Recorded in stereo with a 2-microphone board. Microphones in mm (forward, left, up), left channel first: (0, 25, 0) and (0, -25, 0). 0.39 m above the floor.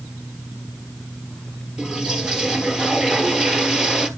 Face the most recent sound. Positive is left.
turn(degrees=-10)  # may be behind; listen again after turning